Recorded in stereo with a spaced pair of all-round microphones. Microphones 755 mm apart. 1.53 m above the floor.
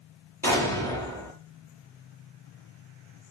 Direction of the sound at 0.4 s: 5° left (ahead or behind).